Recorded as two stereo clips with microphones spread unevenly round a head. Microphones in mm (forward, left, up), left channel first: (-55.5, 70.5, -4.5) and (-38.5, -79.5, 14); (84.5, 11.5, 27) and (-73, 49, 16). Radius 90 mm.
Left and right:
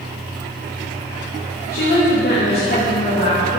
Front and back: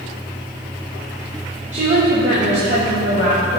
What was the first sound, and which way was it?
A woman speaking, 120° left.